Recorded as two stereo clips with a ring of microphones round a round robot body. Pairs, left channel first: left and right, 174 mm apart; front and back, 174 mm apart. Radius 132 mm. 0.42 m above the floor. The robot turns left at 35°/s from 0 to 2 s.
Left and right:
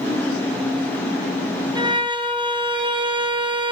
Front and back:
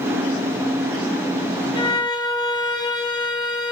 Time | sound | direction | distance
1.8 | a violin | 40° right | 1.0 m